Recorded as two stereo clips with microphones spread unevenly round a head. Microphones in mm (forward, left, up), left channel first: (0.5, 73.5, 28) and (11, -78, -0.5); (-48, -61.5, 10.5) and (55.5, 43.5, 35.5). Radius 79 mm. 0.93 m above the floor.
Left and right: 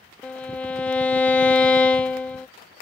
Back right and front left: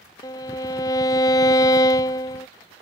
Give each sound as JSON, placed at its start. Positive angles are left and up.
{"t": 0.2, "sound": "a violin", "azimuth_deg": 155}